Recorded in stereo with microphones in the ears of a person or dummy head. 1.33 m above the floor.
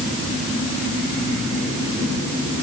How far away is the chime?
No chime in this recording.